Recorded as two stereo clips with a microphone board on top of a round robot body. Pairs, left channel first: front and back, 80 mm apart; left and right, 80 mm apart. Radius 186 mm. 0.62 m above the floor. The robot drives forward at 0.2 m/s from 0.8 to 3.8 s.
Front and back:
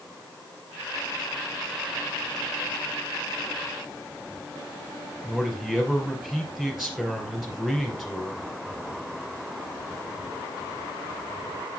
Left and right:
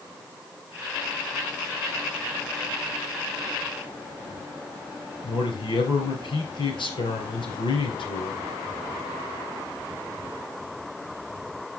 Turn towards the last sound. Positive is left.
turn(degrees=95)